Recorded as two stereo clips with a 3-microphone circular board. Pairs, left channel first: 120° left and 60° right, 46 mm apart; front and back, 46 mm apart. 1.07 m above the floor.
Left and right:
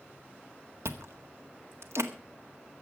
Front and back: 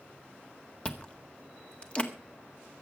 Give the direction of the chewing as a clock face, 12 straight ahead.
2 o'clock.